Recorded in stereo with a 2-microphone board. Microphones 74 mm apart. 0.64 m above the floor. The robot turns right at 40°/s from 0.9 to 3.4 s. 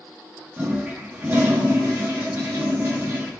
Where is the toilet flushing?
145° right, 0.7 m; by 3.3 s 50° right, 0.7 m.